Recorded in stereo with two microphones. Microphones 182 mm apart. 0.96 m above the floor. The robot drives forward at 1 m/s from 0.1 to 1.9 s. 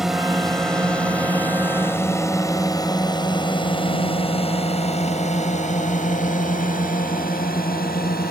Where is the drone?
Centre (ahead or behind); by 8.3 s 55° left (ahead or behind).